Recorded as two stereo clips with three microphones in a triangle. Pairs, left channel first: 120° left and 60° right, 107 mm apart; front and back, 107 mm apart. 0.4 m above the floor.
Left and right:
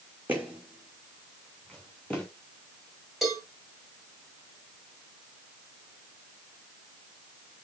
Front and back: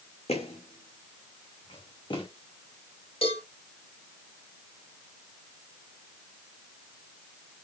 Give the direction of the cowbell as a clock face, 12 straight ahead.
11 o'clock.